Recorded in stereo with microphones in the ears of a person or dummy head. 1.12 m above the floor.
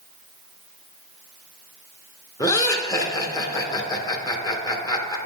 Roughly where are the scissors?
I don't hear scissors.